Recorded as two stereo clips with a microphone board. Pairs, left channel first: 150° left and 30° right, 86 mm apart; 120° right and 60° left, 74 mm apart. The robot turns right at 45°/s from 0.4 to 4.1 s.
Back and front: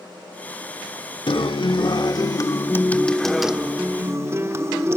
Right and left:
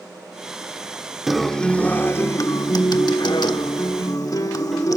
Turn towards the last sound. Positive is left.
turn(degrees=-85)